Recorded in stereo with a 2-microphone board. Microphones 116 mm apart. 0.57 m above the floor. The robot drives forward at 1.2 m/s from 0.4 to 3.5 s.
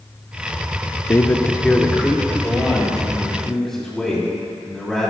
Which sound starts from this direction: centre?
A man speaking, at 1.1 s.